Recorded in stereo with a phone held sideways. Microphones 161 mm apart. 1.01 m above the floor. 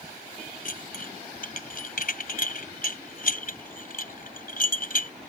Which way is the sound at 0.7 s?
60° left (ahead or behind).